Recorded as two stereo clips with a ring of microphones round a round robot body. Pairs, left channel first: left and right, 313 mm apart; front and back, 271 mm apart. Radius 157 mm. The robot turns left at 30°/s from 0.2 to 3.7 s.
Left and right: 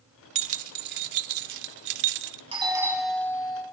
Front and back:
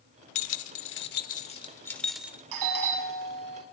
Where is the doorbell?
165° right, 6.5 m; by 3.6 s 165° left, 6.5 m.